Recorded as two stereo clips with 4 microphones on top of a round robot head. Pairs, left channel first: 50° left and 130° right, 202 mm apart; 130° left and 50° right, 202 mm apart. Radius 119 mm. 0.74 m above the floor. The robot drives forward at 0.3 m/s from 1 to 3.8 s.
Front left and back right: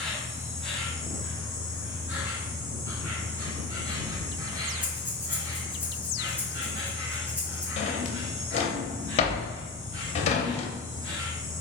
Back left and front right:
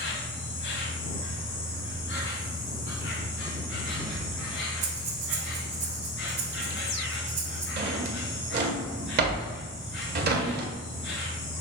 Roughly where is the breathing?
Ahead right.